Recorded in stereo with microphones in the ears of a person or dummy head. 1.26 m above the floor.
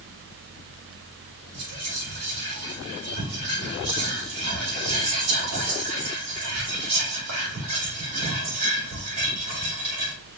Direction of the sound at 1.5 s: 85° right.